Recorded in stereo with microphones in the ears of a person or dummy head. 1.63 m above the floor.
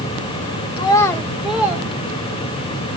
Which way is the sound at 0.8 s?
20° left (ahead or behind).